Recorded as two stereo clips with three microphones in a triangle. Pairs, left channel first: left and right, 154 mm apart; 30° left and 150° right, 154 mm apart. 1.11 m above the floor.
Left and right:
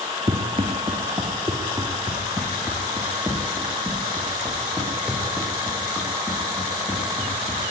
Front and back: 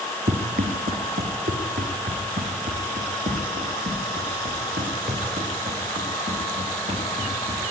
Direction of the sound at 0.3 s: 135° right.